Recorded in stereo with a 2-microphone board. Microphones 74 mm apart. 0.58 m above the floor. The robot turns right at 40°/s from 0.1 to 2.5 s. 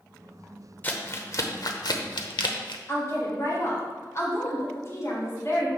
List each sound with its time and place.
0.8 s crumpling: 25° left (ahead or behind), 0.7 m; by 2.8 s 85° left, 0.7 m
2.9 s a woman speaking: 40° left (ahead or behind), 2.5 m